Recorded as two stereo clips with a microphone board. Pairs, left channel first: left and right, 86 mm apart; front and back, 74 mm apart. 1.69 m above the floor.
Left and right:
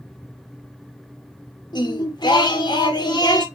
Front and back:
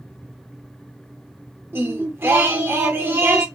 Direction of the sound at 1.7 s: 120° left.